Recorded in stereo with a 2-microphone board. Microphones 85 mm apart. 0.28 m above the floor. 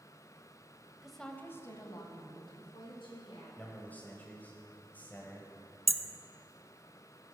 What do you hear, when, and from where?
1.0 s a woman speaking: 5° right (ahead or behind), 1.1 m; by 3.5 s 75° left (ahead or behind), 3.5 m
3.6 s a man speaking: 20° left (ahead or behind), 1.3 m
5.9 s hammering: centre (ahead or behind), 0.8 m